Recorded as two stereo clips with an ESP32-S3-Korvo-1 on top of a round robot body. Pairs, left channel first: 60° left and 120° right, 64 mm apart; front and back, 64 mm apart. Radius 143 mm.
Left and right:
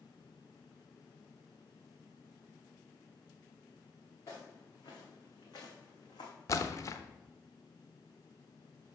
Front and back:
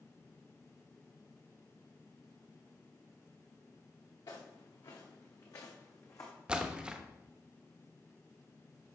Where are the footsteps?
20° left, 2.5 m; by 6.3 s 40° left, 1.8 m.